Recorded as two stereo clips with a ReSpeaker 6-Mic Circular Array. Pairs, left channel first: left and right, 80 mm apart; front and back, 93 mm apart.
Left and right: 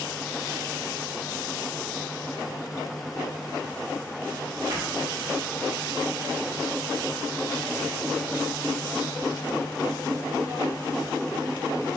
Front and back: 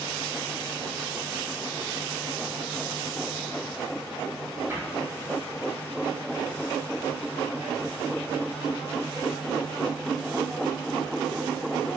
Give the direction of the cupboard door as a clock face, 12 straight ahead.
4 o'clock.